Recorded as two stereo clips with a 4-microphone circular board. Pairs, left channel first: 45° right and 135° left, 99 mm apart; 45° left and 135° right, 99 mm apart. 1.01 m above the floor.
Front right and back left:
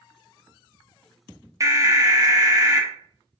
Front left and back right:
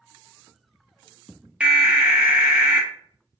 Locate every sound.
1.6 s an alarm: 155° left, 1.0 m